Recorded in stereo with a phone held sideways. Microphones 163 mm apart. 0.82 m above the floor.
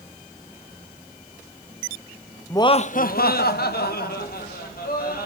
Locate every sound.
2.5 s laughter: 15° left (ahead or behind), 0.6 m; by 5.3 s 70° left (ahead or behind), 3 m